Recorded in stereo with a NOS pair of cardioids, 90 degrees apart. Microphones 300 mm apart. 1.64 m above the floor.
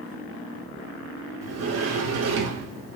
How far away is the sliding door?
About 0.7 m.